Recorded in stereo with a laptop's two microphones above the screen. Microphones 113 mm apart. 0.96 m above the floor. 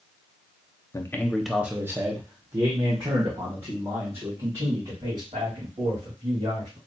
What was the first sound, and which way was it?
A man speaking, 25° left (ahead or behind).